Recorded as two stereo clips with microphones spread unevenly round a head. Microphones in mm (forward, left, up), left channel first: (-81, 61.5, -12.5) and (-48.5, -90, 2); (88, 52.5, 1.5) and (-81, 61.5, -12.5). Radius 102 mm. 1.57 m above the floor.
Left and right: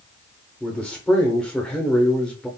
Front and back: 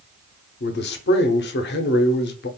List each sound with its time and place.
0.6 s a man speaking: 15° left, 0.7 m